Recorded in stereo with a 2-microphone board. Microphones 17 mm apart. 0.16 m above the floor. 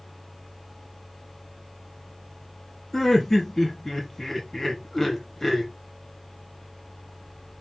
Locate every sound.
2.9 s laughter: 25° left (ahead or behind), 1.0 m